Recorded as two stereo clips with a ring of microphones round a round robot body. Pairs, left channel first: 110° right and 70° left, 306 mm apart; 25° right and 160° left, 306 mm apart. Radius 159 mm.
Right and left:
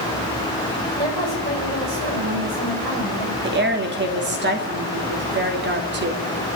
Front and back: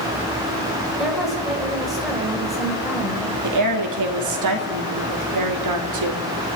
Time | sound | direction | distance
1.0 | a woman speaking | 70° left | 5.5 m
3.4 | a woman speaking | 125° left | 2.5 m